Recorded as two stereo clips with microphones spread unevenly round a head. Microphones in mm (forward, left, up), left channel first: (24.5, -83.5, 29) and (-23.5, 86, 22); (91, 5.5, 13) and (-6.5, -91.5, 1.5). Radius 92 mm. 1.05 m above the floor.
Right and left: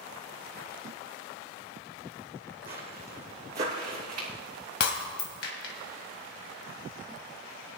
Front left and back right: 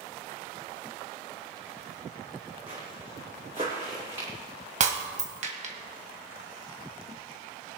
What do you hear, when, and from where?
2.7 s footsteps: 165° left, 2 m; by 4.3 s 155° left, 3.5 m
4.8 s breaking glass: 105° right, 1.8 m